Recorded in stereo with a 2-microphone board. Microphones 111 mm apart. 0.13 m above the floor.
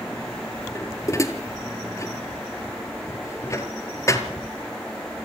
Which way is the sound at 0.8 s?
25° left (ahead or behind).